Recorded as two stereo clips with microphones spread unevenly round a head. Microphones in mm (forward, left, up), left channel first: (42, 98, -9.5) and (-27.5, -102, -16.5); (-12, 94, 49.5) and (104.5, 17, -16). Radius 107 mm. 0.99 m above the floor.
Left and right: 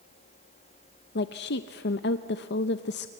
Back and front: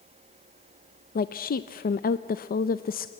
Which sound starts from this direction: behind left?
A woman speaking, at 1.1 s.